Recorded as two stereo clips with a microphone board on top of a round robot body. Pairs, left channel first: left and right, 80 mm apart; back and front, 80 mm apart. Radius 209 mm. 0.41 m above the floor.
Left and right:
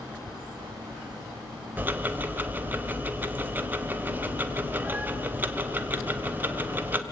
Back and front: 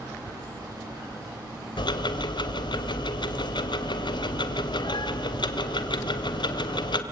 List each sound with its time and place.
1.8 s ticking: 160° right, 1.5 m